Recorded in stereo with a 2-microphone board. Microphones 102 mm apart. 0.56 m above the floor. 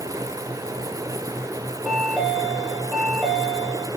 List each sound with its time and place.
1.8 s a chime: 5° right (ahead or behind), 4 m